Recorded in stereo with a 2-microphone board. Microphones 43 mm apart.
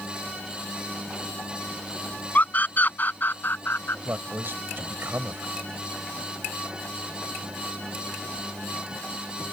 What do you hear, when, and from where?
2.4 s a scream: 40° left (ahead or behind); by 4.0 s 55° left (ahead or behind)
4.0 s a man speaking: 55° right (ahead or behind)